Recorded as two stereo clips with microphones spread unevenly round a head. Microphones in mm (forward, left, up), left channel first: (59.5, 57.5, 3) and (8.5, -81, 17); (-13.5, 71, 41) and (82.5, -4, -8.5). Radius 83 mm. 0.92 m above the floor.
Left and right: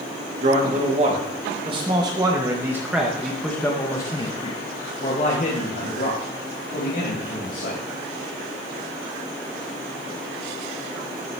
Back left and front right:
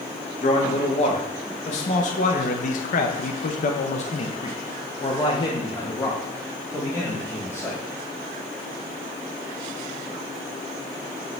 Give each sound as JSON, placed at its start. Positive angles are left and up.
{"t": 0.4, "sound": "a man speaking", "azimuth_deg": -160, "distance_m": 2.0}